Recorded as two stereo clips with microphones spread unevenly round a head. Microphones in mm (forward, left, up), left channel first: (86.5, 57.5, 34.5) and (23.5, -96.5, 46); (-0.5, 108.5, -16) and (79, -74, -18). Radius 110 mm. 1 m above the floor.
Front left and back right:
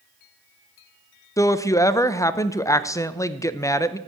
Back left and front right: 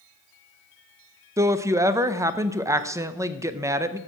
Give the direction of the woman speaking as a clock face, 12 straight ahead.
12 o'clock.